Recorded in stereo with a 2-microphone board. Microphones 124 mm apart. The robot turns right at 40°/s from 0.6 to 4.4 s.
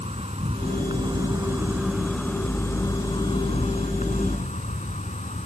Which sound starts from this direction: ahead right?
An insect, at 0.0 s.